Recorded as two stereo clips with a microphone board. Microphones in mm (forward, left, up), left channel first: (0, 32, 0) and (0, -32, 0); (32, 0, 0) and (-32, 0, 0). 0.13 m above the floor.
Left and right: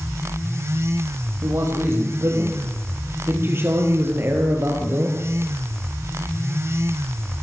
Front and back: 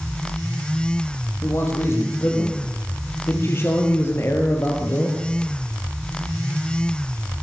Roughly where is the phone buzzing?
No phone buzzing in this recording.